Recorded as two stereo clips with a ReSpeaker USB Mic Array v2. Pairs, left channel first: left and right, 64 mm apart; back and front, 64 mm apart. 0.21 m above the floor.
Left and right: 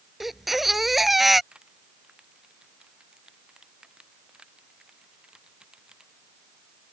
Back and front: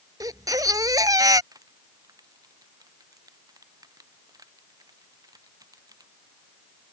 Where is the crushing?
15° right.